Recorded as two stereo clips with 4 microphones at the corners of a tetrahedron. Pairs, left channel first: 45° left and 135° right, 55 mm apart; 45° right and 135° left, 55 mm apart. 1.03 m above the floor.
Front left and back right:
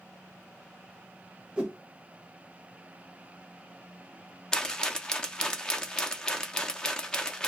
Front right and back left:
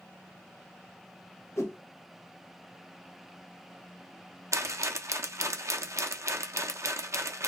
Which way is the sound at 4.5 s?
115° left.